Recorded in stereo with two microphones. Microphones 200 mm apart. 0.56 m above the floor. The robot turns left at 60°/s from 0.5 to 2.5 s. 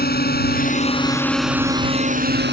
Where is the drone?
50° left (ahead or behind); by 2.5 s 60° right (ahead or behind).